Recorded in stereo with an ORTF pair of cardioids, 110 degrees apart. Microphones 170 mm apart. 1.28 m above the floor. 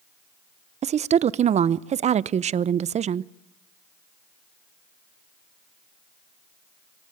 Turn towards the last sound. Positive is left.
turn(degrees=-40)